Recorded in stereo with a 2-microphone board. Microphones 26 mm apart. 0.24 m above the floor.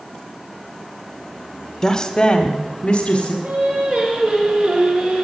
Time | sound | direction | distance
1.8 | a woman speaking | 15° left (ahead or behind) | 0.9 m
3.4 | singing | 60° right (ahead or behind) | 3.5 m